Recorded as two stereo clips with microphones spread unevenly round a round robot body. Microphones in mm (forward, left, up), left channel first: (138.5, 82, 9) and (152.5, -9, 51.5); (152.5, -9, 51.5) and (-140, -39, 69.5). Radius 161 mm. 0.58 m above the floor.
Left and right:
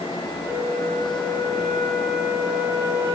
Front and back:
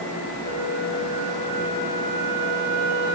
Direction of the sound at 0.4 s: Straight behind.